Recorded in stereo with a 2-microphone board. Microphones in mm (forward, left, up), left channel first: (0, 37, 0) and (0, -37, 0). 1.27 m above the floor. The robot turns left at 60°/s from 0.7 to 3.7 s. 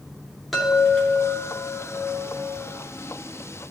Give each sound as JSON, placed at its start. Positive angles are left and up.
{"t": 0.5, "sound": "a chime", "azimuth_deg": 180, "distance_m": 2.5}